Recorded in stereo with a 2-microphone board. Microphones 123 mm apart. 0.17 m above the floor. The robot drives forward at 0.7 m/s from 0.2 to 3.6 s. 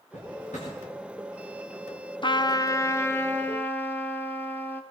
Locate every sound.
0.1 s a drawer: 75° left (ahead or behind), 6.5 m; by 0.7 s 70° left (ahead or behind), 6.5 m
2.2 s a trumpet: 40° left (ahead or behind), 0.5 m; by 4.8 s 15° left (ahead or behind), 1.2 m